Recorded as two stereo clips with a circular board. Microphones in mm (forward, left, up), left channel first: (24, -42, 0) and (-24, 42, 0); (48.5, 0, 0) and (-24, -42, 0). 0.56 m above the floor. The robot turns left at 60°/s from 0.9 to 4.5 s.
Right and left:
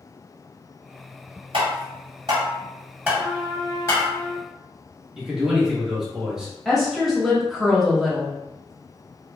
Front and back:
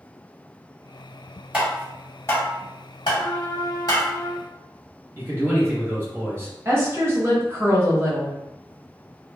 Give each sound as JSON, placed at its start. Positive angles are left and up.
{"t": 1.5, "sound": "tapping", "azimuth_deg": 135, "distance_m": 1.5}
{"t": 3.2, "sound": "a trumpet", "azimuth_deg": 65, "distance_m": 1.1}
{"t": 5.2, "sound": "a man speaking", "azimuth_deg": -165, "distance_m": 1.0}
{"t": 6.7, "sound": "a woman speaking", "azimuth_deg": -150, "distance_m": 1.0}